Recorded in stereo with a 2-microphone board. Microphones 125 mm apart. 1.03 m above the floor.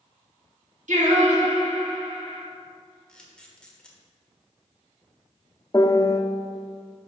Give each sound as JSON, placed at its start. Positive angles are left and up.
{"t": 0.9, "sound": "singing", "side_deg": -75, "distance_m": 1.5}
{"t": 3.1, "sound": "a camera shutter", "side_deg": 5, "distance_m": 1.2}
{"t": 5.7, "sound": "a piano", "side_deg": 25, "distance_m": 0.8}